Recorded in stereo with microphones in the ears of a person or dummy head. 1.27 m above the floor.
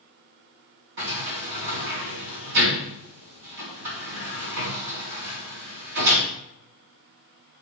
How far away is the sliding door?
About 3 m.